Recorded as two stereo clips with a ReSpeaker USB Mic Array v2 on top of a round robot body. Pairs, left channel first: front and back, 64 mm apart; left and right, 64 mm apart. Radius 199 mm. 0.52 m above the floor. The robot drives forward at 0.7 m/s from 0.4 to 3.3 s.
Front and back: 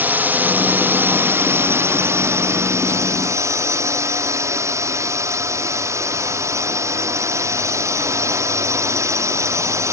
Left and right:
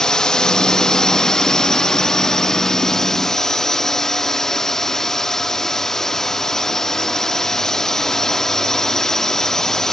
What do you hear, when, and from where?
0.0 s a drone: 160° left; by 9.9 s 170° left